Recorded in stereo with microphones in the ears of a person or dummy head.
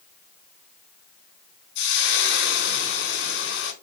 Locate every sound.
1.8 s frying: 65° left (ahead or behind), 2.5 m